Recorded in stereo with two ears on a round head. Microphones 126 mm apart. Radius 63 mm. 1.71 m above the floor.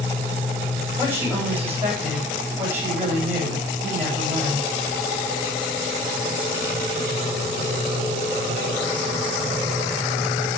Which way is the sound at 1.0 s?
15° right (ahead or behind).